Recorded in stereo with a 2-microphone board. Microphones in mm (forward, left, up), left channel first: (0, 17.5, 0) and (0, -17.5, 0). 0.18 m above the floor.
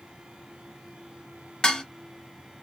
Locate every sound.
1.6 s dishes clattering: 25° left (ahead or behind), 0.7 m